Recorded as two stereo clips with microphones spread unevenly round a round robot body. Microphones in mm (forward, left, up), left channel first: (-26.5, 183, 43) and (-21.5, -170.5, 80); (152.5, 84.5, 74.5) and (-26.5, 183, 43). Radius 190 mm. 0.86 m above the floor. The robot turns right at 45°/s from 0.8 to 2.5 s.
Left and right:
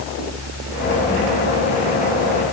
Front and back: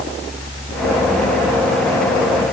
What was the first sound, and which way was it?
Only background noise.